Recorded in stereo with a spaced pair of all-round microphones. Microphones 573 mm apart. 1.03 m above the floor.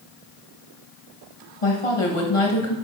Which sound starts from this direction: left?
A woman speaking, at 1.6 s.